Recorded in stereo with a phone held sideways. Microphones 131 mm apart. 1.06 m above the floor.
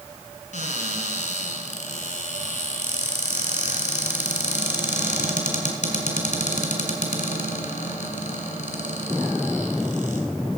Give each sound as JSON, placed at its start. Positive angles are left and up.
{"t": 0.5, "sound": "a cupboard door", "side_deg": 70, "distance_m": 2.5}